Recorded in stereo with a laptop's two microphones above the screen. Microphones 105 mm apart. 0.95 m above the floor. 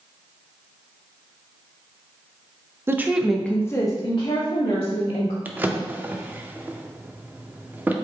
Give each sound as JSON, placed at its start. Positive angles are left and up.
{"t": 2.9, "sound": "a woman speaking", "side_deg": -20, "distance_m": 0.6}
{"t": 5.5, "sound": "a drawer", "side_deg": -20, "distance_m": 0.5}